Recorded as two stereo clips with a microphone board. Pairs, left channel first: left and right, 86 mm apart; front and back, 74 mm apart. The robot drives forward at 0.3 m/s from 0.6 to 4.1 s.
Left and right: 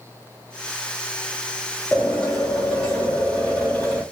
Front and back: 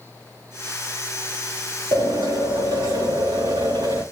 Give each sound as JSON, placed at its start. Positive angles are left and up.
{"t": 1.9, "sound": "a drill", "azimuth_deg": 175, "distance_m": 6.5}